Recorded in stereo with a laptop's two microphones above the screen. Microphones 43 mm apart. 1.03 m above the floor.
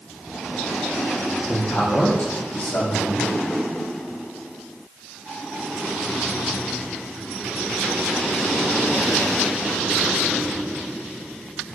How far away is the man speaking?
About 1.2 m.